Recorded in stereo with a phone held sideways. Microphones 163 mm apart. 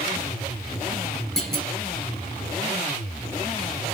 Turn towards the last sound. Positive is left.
turn(degrees=5)  # may be behind; listen again after turning